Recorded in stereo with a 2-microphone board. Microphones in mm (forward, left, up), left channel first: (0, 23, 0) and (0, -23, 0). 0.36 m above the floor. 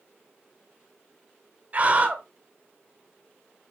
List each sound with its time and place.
1.7 s a scream: 35° right (ahead or behind), 1.7 m